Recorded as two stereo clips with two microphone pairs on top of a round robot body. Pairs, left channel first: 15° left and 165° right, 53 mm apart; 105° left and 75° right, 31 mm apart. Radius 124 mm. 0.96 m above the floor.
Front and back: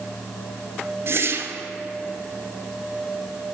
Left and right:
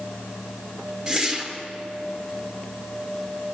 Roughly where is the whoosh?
Behind.